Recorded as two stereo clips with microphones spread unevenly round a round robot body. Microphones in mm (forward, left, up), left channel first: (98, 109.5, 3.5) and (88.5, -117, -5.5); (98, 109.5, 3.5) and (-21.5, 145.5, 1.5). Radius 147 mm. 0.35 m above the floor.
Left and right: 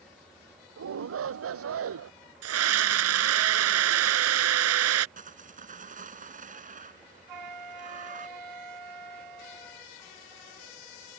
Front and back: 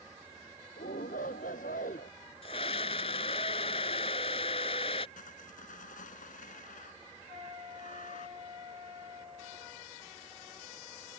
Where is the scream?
85° right.